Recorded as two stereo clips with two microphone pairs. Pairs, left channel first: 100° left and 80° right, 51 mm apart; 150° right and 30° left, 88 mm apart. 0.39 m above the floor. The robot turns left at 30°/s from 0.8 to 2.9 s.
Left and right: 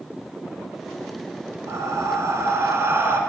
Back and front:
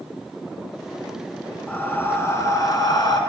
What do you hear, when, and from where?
1.7 s breathing: 75° right, 0.7 m; by 3.2 s 110° right, 0.7 m